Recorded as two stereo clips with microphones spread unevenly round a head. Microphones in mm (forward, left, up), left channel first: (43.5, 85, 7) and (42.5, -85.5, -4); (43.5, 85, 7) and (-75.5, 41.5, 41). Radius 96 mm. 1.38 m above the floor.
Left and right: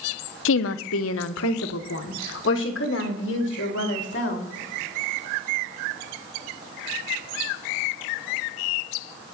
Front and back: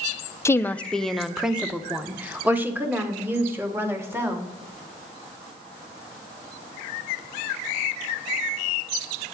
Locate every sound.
0.5 s a woman speaking: 90° left, 0.7 m; by 4.5 s 130° left, 3.5 m